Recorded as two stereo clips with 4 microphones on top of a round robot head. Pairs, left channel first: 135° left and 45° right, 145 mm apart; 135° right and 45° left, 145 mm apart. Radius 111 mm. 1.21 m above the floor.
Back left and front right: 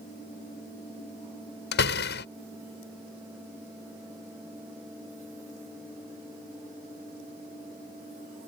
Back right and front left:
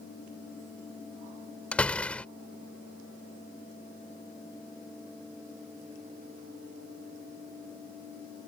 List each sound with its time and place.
1.7 s a door slam: 140° left